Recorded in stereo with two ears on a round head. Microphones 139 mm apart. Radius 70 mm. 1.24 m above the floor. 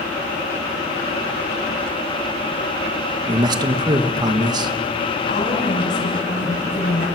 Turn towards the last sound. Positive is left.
turn(degrees=55)  # may be behind; listen again after turning